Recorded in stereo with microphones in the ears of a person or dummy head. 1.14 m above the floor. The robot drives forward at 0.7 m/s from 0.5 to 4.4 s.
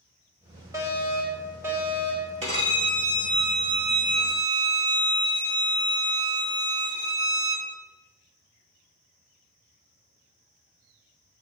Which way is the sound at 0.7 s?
15° right (ahead or behind).